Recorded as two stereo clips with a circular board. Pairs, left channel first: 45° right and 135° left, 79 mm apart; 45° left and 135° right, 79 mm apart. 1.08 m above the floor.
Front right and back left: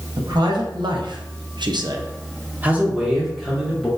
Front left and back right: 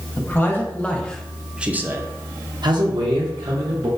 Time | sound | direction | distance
0.2 | a man speaking | 105° left | 1.2 m